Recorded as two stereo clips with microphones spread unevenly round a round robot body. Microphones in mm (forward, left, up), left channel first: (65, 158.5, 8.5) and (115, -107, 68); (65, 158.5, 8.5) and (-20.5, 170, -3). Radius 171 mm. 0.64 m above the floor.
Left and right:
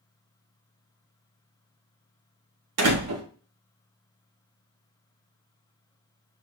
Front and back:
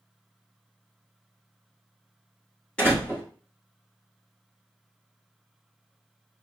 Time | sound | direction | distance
2.8 | a door slam | 90° right | 0.8 m